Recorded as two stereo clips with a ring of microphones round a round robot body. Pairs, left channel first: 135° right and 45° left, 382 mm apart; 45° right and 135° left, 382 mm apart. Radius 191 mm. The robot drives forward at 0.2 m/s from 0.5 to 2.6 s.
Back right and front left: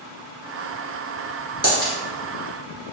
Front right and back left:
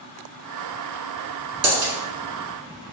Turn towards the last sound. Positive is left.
turn(degrees=150)